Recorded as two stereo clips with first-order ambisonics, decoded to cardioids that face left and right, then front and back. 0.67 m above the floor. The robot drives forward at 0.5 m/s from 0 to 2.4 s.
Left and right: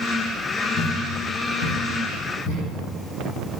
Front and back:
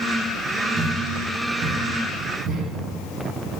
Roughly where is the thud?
Behind left.